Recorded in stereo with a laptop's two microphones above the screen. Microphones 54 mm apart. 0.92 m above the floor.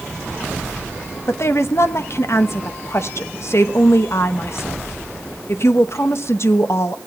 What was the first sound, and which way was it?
A woman speaking, 55° left (ahead or behind).